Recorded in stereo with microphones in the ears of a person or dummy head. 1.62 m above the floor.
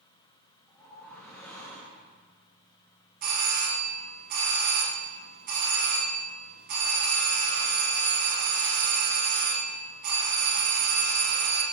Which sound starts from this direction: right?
A doorbell, at 3.2 s.